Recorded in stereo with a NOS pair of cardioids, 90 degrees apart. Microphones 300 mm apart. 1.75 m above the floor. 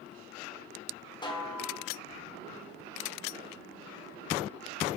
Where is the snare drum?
15° left, 1.4 m.